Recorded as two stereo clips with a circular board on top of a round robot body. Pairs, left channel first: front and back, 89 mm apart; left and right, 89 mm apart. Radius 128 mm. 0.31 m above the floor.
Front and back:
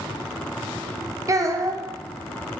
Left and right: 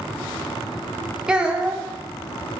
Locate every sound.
1.3 s a child speaking: 165° right, 0.5 m